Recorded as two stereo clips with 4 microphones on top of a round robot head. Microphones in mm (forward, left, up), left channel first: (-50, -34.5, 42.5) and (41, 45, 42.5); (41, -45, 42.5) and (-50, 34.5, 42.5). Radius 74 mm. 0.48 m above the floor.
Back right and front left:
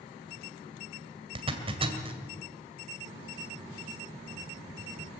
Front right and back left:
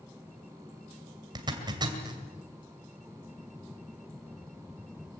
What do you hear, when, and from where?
1.4 s a zipper: 85° left, 2 m